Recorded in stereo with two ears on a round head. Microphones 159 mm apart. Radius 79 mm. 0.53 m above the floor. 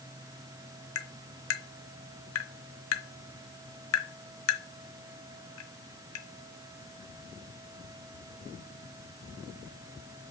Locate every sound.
0.9 s tapping: 80° left, 0.9 m